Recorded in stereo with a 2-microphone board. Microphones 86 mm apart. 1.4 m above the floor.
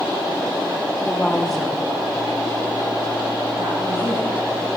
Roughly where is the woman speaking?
Centre.